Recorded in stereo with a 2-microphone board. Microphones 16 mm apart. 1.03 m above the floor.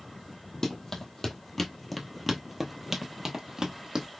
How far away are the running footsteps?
About 1.4 m.